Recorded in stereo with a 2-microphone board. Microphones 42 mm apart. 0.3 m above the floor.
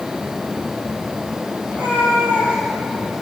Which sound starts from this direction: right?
A cat meowing, at 1.7 s.